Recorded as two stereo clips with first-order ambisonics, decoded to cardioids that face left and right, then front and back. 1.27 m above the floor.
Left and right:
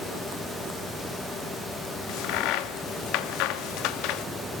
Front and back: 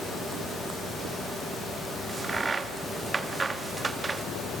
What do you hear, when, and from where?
2.1 s a crack: 105° left, 1.1 m